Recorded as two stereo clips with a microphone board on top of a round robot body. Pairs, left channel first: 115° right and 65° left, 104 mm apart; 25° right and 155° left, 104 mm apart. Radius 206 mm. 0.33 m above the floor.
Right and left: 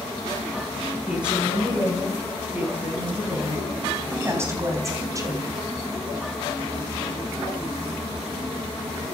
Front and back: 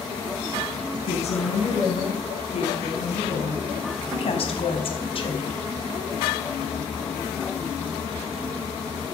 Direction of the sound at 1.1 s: 15° right.